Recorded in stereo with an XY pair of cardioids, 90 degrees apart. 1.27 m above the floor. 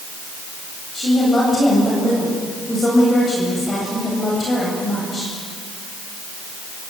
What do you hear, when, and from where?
0.9 s a woman speaking: 35° left, 8.5 m